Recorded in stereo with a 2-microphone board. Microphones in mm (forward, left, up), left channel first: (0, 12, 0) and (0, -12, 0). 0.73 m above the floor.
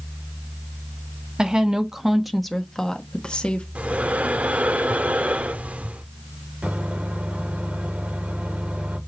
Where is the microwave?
80° right, 1.9 m.